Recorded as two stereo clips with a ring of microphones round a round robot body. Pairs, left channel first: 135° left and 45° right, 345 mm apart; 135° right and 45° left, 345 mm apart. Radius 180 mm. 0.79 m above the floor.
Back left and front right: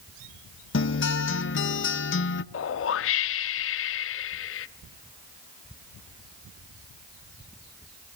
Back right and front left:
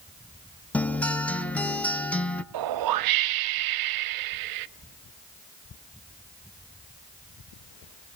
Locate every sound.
0.7 s a guitar: 140° left, 1.0 m
2.5 s a whoosh: 80° left, 0.5 m